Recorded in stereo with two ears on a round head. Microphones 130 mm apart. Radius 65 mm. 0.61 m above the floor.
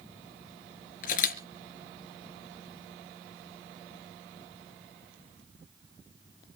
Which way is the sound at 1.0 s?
60° left (ahead or behind).